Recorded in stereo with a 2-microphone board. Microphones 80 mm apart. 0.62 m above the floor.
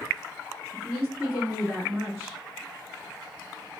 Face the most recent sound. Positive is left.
turn(degrees=-10)  # may be behind; listen again after turning